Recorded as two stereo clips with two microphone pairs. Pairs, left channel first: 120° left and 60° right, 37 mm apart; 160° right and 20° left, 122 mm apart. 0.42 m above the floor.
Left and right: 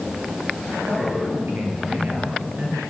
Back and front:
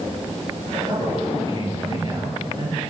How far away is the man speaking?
About 8.5 m.